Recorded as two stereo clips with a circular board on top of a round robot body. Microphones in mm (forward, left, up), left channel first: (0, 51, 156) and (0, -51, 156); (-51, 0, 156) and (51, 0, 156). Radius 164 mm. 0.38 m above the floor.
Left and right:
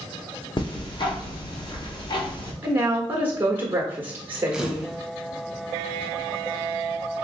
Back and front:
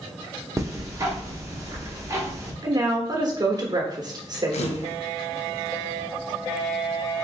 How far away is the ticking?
About 1.3 m.